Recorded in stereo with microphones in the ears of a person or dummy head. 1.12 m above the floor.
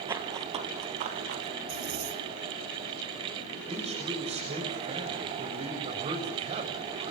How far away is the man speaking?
About 6.5 m.